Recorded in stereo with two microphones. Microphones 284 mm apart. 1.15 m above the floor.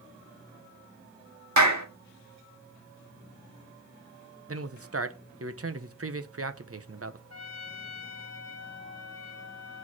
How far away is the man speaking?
About 0.8 m.